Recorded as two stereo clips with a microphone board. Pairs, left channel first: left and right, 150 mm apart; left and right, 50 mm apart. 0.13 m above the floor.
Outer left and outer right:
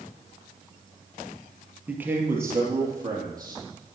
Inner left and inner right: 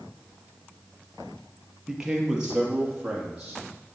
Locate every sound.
1.9 s a man speaking: 10° right (ahead or behind), 3 m; by 3.6 s 25° right (ahead or behind), 5 m